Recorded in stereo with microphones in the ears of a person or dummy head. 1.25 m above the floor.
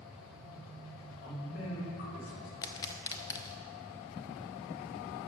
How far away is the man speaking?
About 4 m.